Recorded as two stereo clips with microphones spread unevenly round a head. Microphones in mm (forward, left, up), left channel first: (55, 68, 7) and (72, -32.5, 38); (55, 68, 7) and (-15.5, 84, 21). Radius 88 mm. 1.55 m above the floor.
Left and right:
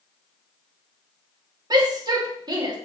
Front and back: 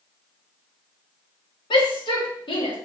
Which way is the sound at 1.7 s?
30° right.